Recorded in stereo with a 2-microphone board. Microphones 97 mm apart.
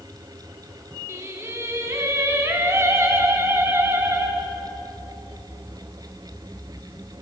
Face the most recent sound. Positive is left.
turn(degrees=-30)  # may be behind; listen again after turning